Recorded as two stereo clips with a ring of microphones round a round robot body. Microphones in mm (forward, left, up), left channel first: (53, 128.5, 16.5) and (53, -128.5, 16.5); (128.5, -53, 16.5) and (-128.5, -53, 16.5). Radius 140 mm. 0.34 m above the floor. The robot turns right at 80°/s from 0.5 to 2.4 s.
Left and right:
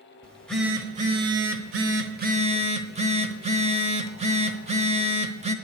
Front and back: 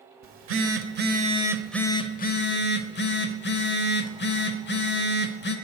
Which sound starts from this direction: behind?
A phone buzzing, at 0.2 s.